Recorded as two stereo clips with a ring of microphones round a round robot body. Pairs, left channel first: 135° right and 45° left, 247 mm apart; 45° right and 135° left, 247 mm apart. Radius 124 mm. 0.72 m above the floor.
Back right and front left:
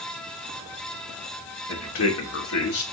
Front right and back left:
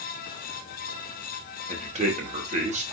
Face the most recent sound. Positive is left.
turn(degrees=-165)